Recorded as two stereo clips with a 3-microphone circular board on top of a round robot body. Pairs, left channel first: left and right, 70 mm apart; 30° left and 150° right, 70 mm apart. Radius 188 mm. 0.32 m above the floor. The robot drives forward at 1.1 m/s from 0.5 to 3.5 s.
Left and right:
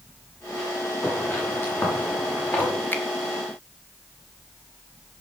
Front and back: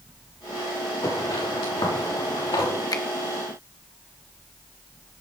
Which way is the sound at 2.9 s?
30° left.